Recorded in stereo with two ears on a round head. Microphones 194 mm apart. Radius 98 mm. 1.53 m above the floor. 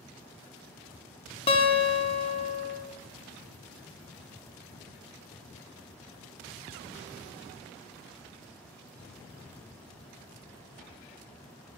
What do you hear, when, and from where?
1.5 s a guitar: 25° left (ahead or behind), 0.9 m